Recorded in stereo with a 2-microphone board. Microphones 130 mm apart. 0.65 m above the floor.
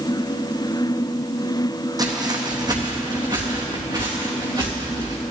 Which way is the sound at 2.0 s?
30° right (ahead or behind).